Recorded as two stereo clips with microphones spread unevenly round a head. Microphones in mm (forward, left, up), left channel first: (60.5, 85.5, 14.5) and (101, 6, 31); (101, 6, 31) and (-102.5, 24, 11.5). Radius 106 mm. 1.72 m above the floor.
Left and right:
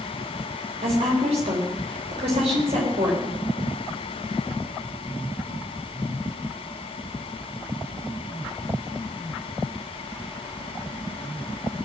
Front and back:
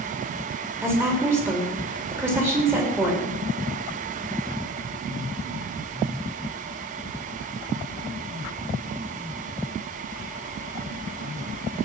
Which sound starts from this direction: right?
A woman speaking, at 0.8 s.